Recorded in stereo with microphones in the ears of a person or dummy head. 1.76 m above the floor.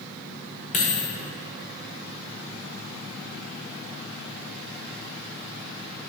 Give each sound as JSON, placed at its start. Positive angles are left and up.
{"t": 0.7, "sound": "a dropped coin", "side_deg": 35, "distance_m": 2.0}